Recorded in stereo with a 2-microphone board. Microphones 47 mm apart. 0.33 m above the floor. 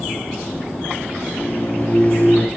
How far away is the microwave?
About 6 m.